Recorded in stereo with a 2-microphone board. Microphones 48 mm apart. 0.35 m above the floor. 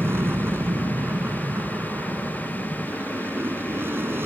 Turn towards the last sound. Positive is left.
turn(degrees=-50)  # may be behind; listen again after turning